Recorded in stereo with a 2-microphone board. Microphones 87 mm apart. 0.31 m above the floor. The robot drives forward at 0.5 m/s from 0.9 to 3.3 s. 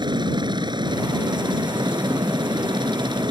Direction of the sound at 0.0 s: 60° right (ahead or behind).